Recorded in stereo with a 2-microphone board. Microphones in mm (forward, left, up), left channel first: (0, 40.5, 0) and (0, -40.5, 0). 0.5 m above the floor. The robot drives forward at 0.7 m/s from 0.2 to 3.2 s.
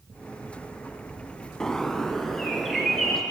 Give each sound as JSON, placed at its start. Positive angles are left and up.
{"t": 1.6, "sound": "a bird", "side_deg": 10, "distance_m": 0.6}